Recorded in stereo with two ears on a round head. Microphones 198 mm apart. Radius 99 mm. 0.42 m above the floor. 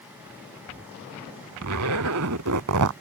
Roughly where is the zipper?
Right.